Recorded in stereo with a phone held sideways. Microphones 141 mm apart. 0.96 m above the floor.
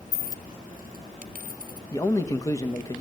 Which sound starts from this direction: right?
A dropped coin, at 0.1 s.